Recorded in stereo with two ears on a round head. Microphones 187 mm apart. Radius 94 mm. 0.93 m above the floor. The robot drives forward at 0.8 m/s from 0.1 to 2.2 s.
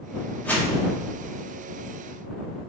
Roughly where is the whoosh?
Centre.